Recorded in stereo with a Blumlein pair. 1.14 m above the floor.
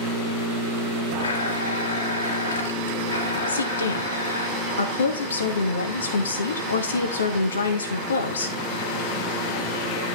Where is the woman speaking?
70° left, 2 m.